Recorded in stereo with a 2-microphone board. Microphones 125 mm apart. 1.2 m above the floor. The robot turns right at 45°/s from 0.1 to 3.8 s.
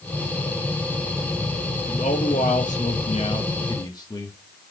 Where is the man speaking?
65° left, 1.3 m; by 4.4 s 150° left, 1.3 m.